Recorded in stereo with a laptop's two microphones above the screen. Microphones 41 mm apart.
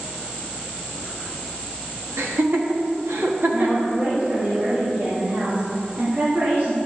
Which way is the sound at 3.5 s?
50° right (ahead or behind).